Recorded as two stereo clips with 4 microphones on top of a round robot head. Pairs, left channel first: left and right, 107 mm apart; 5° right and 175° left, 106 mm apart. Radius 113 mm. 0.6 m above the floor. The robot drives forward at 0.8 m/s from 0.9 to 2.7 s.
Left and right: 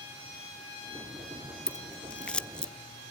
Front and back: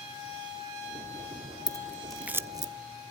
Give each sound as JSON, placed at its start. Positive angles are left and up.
{"t": 1.7, "sound": "scissors", "azimuth_deg": 15, "distance_m": 0.7}